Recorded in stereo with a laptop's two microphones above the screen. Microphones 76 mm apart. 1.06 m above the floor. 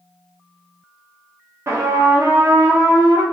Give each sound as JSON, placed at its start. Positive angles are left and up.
{"t": 1.7, "sound": "a trumpet", "side_deg": -40, "distance_m": 1.0}